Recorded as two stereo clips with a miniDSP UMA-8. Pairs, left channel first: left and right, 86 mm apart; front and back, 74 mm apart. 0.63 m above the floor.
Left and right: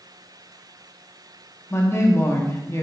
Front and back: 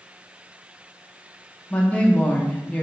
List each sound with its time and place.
1.7 s a woman speaking: 55° left, 0.7 m